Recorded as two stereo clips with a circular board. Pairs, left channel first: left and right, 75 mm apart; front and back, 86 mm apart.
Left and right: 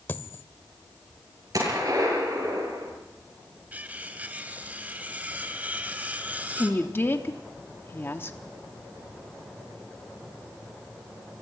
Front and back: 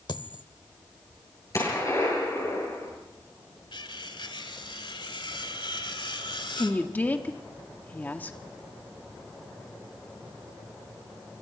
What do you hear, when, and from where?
0.1 s a dropped coin: 30° left, 0.9 m
1.5 s a gunshot: 50° right, 8.5 m
3.7 s cutlery clinking: 20° right, 1.7 m
6.6 s a woman speaking: 55° left, 1.2 m